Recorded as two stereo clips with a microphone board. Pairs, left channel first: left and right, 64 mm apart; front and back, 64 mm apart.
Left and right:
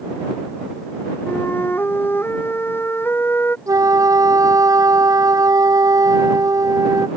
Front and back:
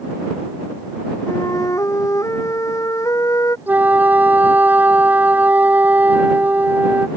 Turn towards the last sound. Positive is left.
turn(degrees=-120)